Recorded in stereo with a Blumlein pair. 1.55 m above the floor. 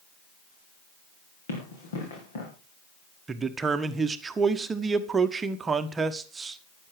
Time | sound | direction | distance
1.5 | running footsteps | 65° left | 6 m
3.3 | a man speaking | 15° right | 1.2 m